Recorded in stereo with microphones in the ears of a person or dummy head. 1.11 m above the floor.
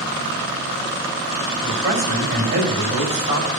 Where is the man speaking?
40° right (ahead or behind), 6 m.